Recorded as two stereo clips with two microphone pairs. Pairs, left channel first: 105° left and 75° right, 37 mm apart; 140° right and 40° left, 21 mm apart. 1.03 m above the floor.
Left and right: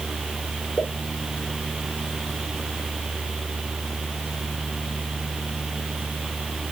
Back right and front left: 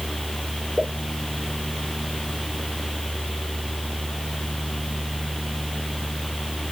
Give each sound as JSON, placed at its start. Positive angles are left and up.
{"t": 0.8, "sound": "a pop", "azimuth_deg": 20, "distance_m": 2.5}